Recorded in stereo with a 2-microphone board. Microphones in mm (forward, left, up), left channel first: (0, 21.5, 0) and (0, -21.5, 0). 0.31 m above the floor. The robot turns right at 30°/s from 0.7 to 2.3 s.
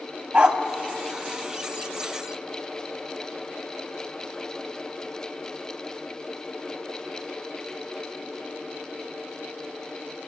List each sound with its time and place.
0.3 s a dog barking: 35° right (ahead or behind), 0.8 m